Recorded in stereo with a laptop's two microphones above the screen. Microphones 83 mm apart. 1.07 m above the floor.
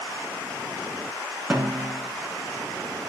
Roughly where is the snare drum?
Right.